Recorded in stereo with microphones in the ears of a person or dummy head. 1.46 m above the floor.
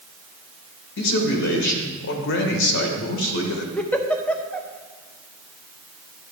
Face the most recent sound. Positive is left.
turn(degrees=10)  # may be behind; listen again after turning